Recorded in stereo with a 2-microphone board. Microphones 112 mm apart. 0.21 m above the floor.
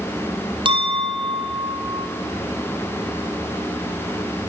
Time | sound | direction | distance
0.7 | a clink | 45° right (ahead or behind) | 4 m